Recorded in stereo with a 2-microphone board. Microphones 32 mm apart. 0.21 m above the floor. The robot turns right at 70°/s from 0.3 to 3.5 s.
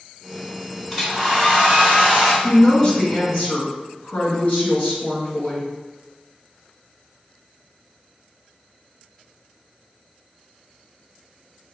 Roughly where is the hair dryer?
Behind.